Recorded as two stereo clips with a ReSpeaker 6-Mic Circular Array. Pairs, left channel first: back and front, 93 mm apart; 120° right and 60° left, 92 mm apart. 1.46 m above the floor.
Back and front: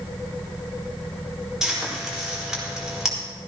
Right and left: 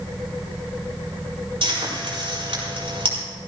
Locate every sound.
1.6 s frying: 85° left, 4.5 m